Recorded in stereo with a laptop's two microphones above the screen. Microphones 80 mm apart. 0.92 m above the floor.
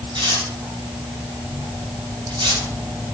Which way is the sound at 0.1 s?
75° right (ahead or behind).